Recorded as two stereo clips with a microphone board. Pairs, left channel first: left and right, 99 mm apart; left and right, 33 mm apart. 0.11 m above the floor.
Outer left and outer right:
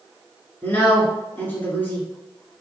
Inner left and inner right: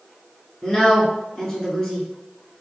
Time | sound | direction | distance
0.6 | a woman speaking | 20° left (ahead or behind) | 1.1 m